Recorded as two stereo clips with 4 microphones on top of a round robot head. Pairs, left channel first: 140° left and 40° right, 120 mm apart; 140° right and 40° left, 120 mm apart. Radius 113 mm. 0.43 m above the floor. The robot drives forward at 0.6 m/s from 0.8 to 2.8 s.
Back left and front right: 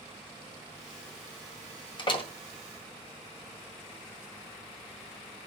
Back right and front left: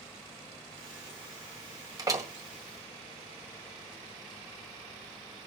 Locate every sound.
2.0 s a door slam: 95° left, 1.6 m; by 2.3 s 105° left, 1.7 m